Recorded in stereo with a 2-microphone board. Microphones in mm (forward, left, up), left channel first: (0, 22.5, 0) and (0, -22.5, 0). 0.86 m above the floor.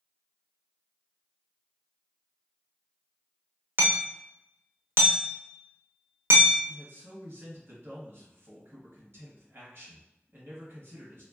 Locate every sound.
3.8 s hammering: 55° right (ahead or behind), 0.7 m
6.7 s a man speaking: 60° right (ahead or behind), 1.4 m